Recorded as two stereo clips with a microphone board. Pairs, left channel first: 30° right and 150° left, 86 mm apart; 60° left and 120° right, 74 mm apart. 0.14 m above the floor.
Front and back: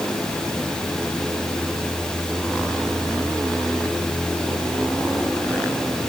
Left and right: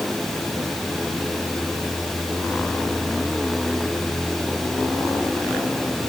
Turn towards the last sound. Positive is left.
No sound to turn to.